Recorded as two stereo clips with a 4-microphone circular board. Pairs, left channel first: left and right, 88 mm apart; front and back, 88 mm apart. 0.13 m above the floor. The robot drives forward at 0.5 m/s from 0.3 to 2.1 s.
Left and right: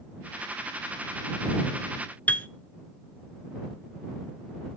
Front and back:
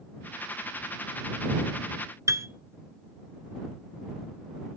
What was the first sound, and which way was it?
A piano, 155° left.